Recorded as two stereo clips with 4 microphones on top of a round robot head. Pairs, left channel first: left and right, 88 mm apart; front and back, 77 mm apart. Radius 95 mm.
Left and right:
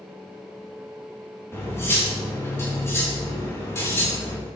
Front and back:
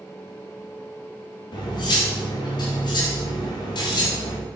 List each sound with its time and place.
1.5 s cutlery clinking: 30° left, 1.9 m